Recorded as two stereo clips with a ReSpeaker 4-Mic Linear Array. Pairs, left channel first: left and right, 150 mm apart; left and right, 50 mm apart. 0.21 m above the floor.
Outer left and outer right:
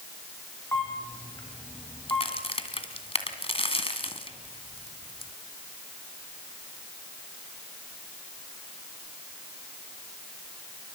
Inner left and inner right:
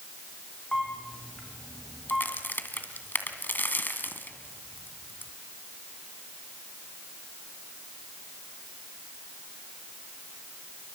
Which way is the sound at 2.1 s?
40° left (ahead or behind).